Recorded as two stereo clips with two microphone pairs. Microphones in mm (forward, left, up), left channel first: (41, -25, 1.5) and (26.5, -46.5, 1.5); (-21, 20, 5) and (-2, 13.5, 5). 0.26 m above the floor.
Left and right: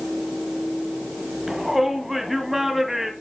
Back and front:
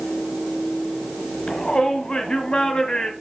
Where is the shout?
165° left, 1.8 m.